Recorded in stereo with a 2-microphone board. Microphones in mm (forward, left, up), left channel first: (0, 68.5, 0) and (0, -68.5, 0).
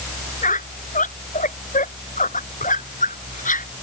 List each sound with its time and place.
0.4 s a squeak: 70° left (ahead or behind)